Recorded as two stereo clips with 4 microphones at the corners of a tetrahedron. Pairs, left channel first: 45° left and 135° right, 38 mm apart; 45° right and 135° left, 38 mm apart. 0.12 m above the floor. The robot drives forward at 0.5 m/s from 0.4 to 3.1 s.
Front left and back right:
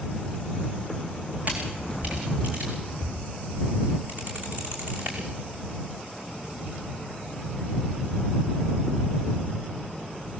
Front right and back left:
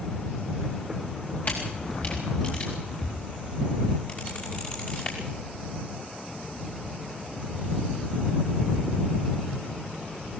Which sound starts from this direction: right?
A camera shutter, at 1.4 s.